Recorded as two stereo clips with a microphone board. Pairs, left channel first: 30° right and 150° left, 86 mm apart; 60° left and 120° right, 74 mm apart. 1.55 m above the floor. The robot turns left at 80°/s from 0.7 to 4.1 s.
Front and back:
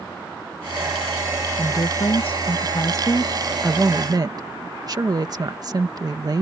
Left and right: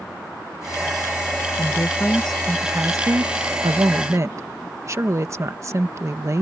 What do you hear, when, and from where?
1.6 s a woman speaking: 35° left; by 6.4 s 165° right